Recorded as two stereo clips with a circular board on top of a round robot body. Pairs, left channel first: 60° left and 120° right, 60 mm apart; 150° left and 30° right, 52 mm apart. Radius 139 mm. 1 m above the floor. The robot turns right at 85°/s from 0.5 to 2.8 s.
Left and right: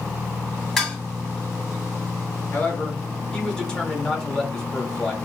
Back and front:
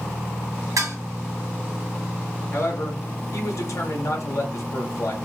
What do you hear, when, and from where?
0.8 s dishes clattering: 25° right, 1.9 m; by 1.0 s 5° right, 1.9 m
2.5 s a man speaking: 115° left, 1.9 m; by 5.2 s 140° left, 1.9 m